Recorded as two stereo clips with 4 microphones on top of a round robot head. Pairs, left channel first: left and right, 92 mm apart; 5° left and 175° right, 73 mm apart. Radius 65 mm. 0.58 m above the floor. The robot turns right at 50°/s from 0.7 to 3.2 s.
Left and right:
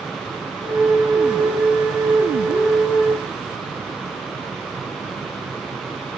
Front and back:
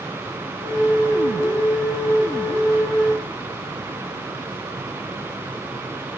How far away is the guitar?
No guitar in this recording.